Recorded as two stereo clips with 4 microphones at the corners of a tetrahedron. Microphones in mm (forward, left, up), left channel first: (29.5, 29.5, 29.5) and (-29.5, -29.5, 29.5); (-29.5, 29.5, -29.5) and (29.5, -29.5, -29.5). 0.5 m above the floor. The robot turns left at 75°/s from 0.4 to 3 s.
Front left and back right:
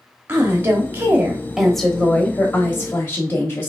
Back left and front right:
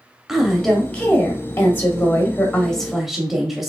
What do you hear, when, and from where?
0.3 s a woman speaking: 125° right, 1.0 m; by 3.7 s 40° left, 1.0 m